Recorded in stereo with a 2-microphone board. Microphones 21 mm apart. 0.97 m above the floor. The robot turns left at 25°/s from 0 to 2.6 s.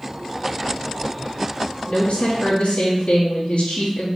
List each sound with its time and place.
1.9 s a woman speaking: 65° left (ahead or behind), 1.6 m; by 4.1 s 70° left (ahead or behind), 1.6 m